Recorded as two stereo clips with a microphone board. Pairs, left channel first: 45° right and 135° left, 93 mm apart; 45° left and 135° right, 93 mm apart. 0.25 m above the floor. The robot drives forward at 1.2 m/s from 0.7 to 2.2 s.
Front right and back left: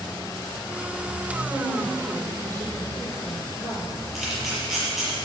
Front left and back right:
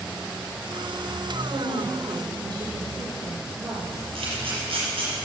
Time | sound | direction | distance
1.5 | a woman speaking | 175° right | 5.5 m
4.2 | a camera shutter | 140° right | 5.5 m